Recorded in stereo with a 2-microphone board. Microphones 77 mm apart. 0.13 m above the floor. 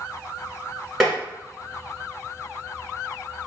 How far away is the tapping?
About 1.2 m.